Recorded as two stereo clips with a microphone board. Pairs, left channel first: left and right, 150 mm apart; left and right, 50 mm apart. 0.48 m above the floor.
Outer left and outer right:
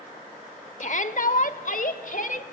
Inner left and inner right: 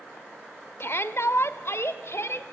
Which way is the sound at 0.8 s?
55° left (ahead or behind).